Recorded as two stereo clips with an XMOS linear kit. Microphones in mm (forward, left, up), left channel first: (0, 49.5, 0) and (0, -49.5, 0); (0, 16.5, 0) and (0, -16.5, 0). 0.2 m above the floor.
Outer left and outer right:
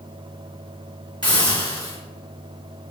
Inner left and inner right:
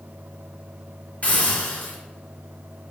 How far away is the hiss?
About 1.7 m.